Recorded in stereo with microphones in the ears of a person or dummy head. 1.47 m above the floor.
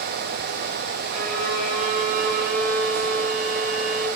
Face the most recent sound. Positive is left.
turn(degrees=-50)  # may be behind; listen again after turning